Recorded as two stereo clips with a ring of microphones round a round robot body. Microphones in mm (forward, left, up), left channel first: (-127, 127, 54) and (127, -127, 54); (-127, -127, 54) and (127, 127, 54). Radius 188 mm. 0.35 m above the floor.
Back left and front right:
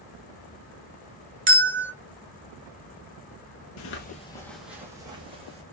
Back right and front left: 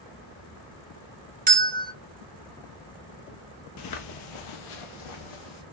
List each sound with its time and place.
1.5 s a bell: 10° right, 1.2 m
3.8 s footsteps: straight behind, 0.5 m; by 5.6 s 120° right, 1.3 m